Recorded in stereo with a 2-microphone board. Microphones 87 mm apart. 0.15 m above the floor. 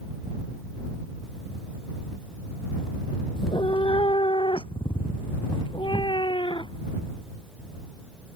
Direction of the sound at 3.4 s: 70° left (ahead or behind).